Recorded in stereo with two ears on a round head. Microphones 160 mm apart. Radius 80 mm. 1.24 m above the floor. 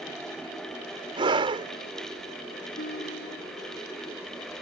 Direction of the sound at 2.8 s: 50° left (ahead or behind).